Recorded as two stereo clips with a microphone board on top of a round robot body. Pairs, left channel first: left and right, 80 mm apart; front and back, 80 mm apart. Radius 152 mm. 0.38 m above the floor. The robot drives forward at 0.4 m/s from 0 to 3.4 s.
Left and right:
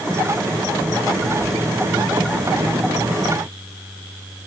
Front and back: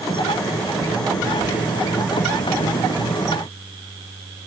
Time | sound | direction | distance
1.4 | whispering | 95° left | 1.0 m